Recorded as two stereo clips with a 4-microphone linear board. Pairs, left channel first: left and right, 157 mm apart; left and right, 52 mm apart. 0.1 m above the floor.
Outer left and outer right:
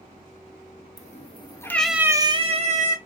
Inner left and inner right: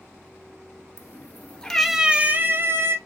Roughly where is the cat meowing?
Left.